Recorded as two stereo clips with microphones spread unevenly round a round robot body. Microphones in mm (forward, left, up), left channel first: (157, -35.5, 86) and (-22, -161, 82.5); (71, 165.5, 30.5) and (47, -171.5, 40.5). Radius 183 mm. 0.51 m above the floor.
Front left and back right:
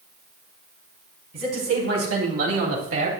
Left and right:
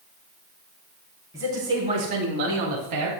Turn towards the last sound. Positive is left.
turn(degrees=-135)